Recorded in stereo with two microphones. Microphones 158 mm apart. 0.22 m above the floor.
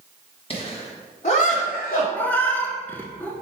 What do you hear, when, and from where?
0.5 s laughter: 35° left (ahead or behind), 1.1 m; by 2.0 s 55° left (ahead or behind), 1.7 m
2.1 s a cat meowing: 10° left (ahead or behind), 0.5 m